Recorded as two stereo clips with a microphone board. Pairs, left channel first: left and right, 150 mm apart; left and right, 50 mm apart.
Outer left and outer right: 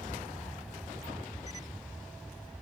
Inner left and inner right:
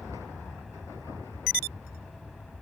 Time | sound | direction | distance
0.0 | an aircraft | centre (ahead or behind) | ?